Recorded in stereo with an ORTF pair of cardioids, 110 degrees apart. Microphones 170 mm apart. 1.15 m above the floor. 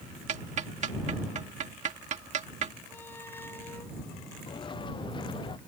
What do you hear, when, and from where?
0.3 s ticking: 45° right
2.9 s a squeak: 15° left
4.5 s footsteps: 30° left